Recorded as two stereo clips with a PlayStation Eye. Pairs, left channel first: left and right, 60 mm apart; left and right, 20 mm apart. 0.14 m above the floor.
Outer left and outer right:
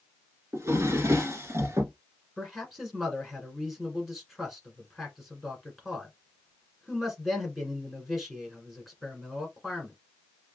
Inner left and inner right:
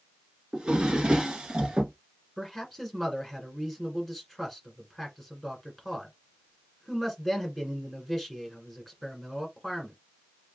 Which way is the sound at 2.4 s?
Centre (ahead or behind).